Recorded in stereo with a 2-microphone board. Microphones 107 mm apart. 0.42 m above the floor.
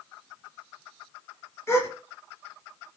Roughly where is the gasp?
Left.